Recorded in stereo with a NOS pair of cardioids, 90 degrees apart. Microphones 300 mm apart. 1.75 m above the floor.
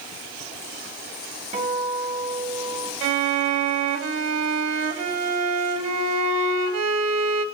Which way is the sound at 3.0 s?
60° right.